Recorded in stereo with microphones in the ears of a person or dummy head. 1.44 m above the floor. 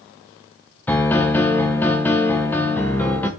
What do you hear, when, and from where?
0.9 s a piano: 10° left (ahead or behind), 0.7 m